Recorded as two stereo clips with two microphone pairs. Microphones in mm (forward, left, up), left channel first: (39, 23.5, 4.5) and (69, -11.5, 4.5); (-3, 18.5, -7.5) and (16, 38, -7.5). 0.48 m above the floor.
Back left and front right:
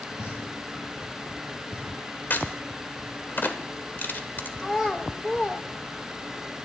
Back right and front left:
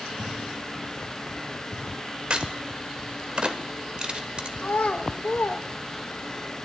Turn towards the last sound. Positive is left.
turn(degrees=-150)